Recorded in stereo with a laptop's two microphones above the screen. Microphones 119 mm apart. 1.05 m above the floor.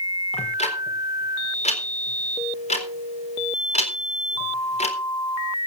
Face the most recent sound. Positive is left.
turn(degrees=70)  # may be behind; listen again after turning